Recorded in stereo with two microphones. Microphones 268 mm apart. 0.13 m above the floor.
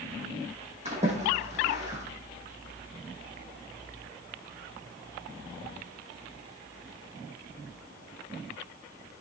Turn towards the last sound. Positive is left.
turn(degrees=-25)  # may be behind; listen again after turning